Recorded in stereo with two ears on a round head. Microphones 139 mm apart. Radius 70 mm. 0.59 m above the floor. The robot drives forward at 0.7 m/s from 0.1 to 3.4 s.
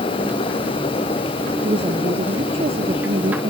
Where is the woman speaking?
35° right (ahead or behind); by 3.5 s 40° right (ahead or behind).